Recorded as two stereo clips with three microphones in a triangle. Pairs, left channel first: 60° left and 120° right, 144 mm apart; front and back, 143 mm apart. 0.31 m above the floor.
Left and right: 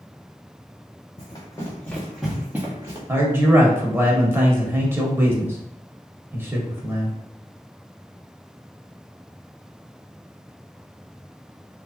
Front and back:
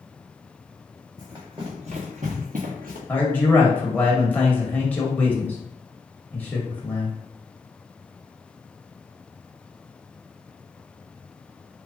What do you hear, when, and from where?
1.2 s running footsteps: 115° left, 1.8 m; by 3.0 s 175° left, 1.8 m
3.1 s a man speaking: 65° right, 1.0 m